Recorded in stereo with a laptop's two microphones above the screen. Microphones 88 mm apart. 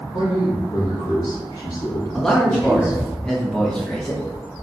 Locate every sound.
0.1 s a man speaking: 50° left (ahead or behind), 1.9 m; by 3.1 s 30° left (ahead or behind), 3.5 m
2.1 s a man speaking: 5° left (ahead or behind), 1.4 m